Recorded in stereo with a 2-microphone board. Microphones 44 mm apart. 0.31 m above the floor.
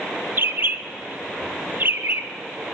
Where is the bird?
45° right (ahead or behind), 0.6 m.